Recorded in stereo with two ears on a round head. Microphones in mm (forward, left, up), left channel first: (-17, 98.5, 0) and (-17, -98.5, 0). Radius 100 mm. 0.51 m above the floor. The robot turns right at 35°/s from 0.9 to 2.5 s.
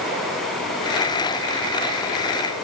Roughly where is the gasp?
No gasp in this recording.